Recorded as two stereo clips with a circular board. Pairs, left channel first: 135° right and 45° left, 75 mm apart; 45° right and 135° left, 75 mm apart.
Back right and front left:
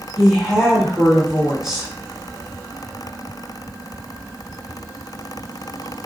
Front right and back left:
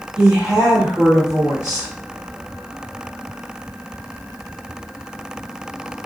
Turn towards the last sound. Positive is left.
turn(degrees=125)